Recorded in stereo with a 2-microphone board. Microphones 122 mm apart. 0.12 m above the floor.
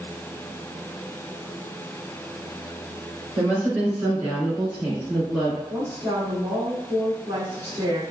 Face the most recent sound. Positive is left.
turn(degrees=-20)  # may be behind; listen again after turning